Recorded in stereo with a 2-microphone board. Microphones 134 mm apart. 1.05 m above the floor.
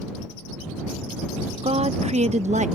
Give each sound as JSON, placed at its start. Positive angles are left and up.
{"t": 1.6, "sound": "a woman speaking", "side_deg": -45}